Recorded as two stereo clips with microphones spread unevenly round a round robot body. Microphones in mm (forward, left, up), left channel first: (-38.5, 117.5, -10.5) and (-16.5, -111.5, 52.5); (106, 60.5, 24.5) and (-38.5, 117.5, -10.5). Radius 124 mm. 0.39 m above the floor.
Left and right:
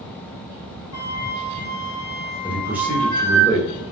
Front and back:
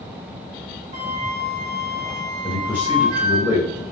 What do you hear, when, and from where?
0.9 s a flute: 105° left, 1.9 m
2.4 s a man speaking: 170° left, 1.4 m